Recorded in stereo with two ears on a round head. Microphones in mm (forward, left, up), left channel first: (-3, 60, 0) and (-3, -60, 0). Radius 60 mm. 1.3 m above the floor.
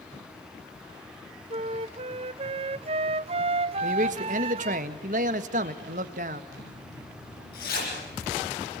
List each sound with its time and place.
1.5 s a flute: 45° right (ahead or behind), 0.6 m
3.8 s a man speaking: 60° right (ahead or behind), 1.7 m
6.5 s a zipper: 75° left (ahead or behind), 8.5 m